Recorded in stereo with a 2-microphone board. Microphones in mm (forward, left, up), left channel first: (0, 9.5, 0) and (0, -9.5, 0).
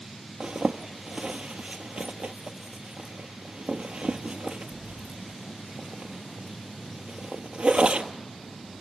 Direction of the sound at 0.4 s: 65° right (ahead or behind).